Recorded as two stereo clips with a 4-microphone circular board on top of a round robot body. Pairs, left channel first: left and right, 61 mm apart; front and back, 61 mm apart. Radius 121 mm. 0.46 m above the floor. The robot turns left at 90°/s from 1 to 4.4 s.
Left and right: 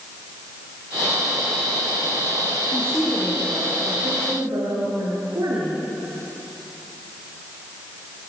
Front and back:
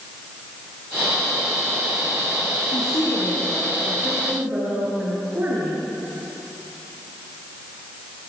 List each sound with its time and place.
2.7 s a woman speaking: 35° left, 7.5 m; by 5.8 s 115° right, 7.5 m